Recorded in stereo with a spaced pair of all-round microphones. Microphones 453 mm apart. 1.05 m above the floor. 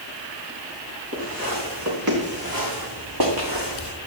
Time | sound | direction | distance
1.1 | footsteps | 30° right (ahead or behind) | 6 m